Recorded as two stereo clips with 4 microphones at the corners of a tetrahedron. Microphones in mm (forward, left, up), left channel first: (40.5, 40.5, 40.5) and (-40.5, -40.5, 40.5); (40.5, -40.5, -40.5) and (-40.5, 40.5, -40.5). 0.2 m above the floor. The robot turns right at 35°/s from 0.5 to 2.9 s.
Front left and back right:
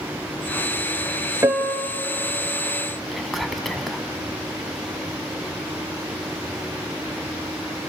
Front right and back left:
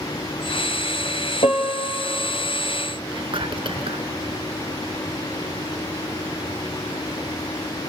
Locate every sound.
1.4 s a piano: 70° right, 1.5 m; by 2.0 s 50° right, 1.5 m
3.1 s whispering: 135° left, 1.7 m